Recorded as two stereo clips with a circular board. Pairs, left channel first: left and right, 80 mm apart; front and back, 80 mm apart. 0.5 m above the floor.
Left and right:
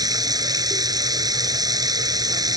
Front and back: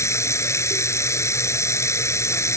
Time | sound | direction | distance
0.0 | running water | 55° right | ?